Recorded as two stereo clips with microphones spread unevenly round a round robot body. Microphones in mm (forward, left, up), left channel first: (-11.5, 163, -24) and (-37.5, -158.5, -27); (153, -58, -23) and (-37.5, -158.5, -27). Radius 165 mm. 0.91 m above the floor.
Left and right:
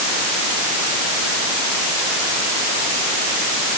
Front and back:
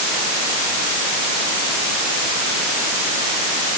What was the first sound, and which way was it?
Only background noise.